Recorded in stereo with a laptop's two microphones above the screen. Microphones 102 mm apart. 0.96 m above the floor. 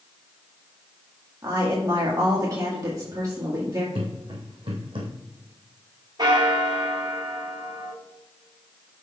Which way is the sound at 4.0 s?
65° right (ahead or behind).